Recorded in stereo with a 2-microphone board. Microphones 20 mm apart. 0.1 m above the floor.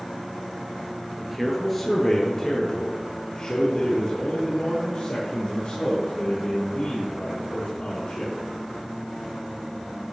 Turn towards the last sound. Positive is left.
turn(degrees=65)  # may be behind; listen again after turning